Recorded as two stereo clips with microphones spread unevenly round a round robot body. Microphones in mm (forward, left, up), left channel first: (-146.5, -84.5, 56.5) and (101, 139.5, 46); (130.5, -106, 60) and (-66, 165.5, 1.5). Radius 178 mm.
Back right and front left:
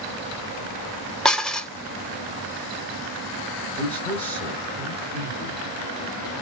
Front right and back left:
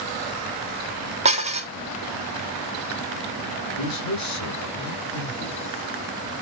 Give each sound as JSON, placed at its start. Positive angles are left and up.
{"t": 1.2, "sound": "dishes clattering", "azimuth_deg": 135, "distance_m": 0.6}
{"t": 3.8, "sound": "a man speaking", "azimuth_deg": -55, "distance_m": 1.1}